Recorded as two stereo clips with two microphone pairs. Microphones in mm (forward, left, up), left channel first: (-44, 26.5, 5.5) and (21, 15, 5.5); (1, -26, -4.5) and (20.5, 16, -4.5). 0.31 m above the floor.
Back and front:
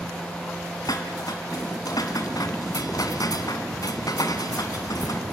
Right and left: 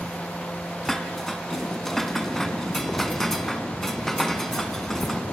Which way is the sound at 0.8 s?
165° left.